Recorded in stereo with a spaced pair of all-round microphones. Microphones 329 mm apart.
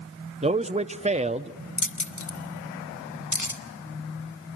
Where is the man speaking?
20° right (ahead or behind), 0.6 m.